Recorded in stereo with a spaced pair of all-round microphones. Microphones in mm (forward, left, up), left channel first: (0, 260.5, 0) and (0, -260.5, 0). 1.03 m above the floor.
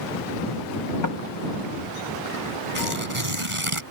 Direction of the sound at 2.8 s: 70° right (ahead or behind).